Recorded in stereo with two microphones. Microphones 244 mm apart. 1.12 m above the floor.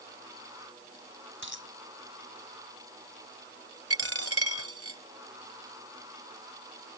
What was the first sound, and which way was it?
A dropped coin, 55° right (ahead or behind).